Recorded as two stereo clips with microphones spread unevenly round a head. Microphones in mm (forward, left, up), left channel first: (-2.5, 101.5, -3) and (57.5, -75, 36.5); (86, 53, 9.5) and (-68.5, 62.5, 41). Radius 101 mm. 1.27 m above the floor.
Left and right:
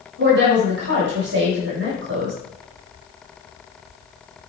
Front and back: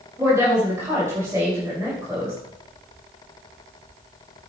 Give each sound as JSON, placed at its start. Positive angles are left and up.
{"t": 0.2, "sound": "a woman speaking", "azimuth_deg": -105, "distance_m": 6.0}